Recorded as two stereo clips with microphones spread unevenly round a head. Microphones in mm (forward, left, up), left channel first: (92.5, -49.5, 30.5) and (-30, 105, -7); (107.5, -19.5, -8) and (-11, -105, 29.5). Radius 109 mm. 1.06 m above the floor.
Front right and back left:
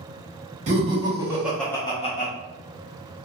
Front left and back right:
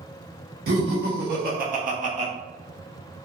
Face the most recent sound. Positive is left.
turn(degrees=-95)